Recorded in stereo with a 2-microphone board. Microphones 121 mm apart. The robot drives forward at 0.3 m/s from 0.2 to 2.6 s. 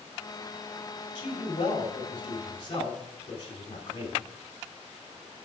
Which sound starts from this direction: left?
A man speaking, at 1.1 s.